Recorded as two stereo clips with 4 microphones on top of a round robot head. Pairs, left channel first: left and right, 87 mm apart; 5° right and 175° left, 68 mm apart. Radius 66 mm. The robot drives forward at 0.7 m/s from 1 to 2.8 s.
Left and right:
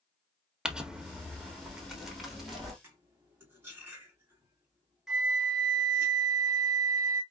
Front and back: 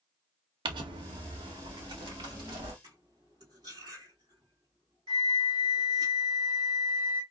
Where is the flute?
175° right, 1.1 m.